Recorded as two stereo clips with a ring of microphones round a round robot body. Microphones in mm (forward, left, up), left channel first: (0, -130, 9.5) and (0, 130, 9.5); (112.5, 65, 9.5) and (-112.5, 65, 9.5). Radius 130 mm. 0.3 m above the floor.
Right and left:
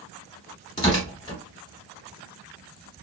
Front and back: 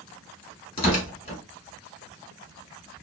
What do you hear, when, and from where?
0.8 s tearing paper: 35° right, 1.5 m